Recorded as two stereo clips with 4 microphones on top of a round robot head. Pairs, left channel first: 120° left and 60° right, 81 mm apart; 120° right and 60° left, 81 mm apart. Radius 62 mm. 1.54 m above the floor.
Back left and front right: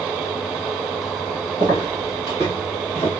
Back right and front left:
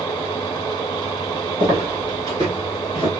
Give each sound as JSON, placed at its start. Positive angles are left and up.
{"t": 1.6, "sound": "footsteps", "azimuth_deg": 85, "distance_m": 2.0}